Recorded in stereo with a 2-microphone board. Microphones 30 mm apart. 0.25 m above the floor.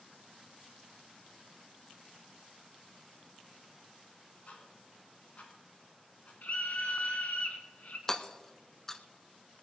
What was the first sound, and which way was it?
Ticking, 45° left (ahead or behind).